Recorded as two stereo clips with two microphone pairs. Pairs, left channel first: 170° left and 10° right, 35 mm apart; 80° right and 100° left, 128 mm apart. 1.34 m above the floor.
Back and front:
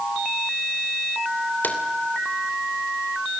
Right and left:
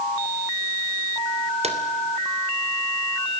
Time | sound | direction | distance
1.6 | a drawer | 140° left | 3 m